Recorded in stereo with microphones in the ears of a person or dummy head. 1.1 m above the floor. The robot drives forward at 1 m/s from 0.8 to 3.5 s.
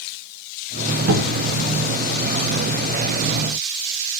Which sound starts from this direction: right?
A cupboard door, at 1.1 s.